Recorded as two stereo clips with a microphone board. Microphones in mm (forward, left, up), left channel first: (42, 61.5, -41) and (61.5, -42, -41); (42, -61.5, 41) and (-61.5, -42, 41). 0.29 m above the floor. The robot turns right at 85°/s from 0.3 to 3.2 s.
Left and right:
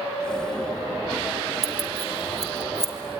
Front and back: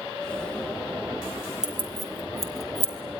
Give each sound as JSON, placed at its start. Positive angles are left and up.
{"t": 1.6, "sound": "keys jangling", "azimuth_deg": 85, "distance_m": 3.0}